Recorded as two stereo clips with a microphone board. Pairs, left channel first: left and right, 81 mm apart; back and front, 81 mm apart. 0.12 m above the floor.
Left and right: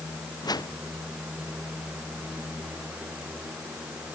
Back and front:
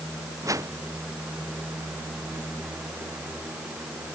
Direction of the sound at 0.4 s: 50° left.